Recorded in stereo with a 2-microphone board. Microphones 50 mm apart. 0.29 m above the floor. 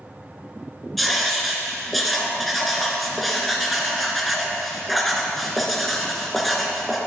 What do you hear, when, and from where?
1.0 s writing: centre (ahead or behind), 2 m